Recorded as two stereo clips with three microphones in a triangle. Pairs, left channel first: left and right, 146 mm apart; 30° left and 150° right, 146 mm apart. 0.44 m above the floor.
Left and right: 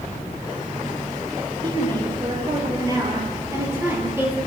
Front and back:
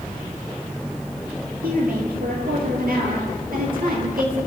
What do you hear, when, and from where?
1.6 s a woman speaking: 145° right, 10 m; by 4.4 s 165° right, 9.5 m